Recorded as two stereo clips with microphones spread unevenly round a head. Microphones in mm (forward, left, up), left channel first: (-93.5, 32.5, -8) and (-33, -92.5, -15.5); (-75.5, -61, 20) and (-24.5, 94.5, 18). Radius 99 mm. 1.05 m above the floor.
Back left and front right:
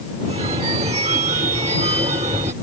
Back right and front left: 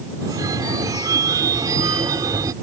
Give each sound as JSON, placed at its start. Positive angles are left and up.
{"t": 0.2, "sound": "a phone ringing", "azimuth_deg": 0}